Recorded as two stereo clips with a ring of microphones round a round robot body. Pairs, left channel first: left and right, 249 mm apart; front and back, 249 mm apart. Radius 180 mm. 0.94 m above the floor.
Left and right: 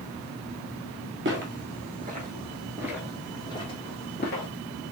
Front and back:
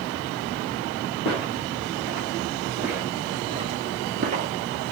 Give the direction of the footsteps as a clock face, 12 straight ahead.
2 o'clock.